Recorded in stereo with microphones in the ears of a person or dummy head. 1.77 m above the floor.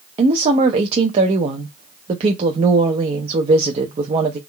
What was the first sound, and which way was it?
A woman speaking, 35° right (ahead or behind).